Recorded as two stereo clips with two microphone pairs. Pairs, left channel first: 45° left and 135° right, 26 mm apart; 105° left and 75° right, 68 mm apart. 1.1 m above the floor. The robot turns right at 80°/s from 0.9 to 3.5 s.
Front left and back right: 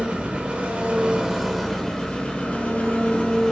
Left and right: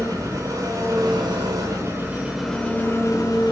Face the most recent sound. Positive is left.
turn(degrees=100)